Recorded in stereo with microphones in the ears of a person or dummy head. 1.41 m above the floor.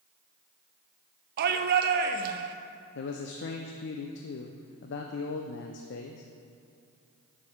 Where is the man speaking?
60° left (ahead or behind), 0.6 m.